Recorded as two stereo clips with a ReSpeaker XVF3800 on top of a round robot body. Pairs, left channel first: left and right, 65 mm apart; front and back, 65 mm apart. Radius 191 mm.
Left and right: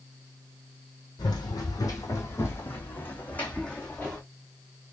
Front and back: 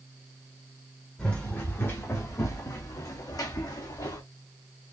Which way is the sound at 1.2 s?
75° left.